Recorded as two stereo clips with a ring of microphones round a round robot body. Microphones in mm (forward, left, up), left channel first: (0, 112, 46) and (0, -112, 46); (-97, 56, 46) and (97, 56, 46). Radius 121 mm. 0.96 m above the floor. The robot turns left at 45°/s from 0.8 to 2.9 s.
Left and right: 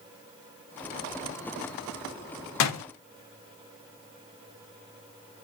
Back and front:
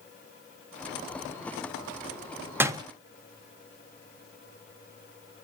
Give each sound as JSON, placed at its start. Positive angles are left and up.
{"t": 2.6, "sound": "a door slam", "azimuth_deg": 80, "distance_m": 0.9}